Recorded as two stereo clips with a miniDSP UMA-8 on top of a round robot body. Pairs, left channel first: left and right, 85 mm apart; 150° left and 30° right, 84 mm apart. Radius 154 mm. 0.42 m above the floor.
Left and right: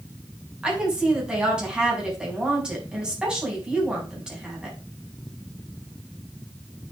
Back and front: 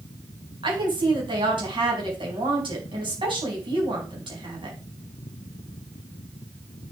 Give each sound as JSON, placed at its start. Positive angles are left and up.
{"t": 0.6, "sound": "a woman speaking", "azimuth_deg": -10, "distance_m": 5.0}